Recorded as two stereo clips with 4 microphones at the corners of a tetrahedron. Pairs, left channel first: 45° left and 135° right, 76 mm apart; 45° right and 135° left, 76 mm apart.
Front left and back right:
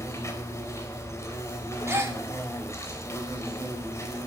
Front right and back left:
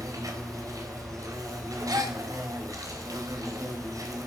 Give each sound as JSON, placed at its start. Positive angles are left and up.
{"t": 0.0, "sound": "an insect", "azimuth_deg": 95, "distance_m": 4.0}
{"t": 1.9, "sound": "a gasp", "azimuth_deg": 170, "distance_m": 2.0}